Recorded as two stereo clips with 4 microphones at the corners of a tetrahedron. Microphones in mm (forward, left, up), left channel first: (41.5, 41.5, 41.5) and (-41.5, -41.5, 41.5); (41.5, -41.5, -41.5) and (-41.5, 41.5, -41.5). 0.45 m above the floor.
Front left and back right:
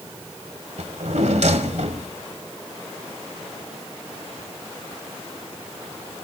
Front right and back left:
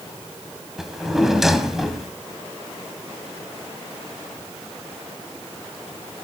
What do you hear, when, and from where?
0.8 s a drawer: 140° right, 1.4 m